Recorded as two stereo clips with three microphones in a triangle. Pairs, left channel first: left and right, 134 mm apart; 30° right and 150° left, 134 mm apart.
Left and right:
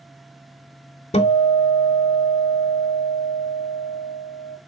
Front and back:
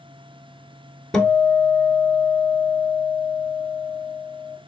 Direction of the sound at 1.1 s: 55° left.